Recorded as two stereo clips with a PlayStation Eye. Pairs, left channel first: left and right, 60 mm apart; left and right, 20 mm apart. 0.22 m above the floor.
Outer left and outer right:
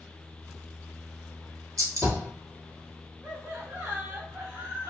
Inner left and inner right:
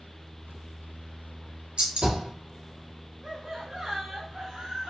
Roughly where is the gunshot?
Right.